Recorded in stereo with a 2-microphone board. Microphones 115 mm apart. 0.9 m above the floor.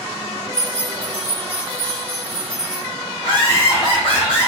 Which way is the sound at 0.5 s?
80° left.